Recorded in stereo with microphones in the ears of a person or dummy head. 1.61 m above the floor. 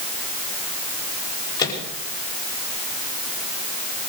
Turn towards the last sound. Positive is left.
turn(degrees=25)  # may be behind; listen again after turning